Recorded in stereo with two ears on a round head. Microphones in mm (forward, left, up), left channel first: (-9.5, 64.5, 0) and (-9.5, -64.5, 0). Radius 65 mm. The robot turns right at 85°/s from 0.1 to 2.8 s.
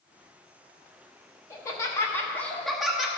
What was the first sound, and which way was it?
Laughter, 20° left (ahead or behind).